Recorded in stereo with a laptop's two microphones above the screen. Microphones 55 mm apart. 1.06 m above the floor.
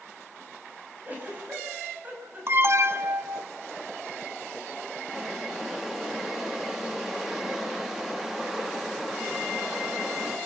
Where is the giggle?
30° right (ahead or behind), 6 m.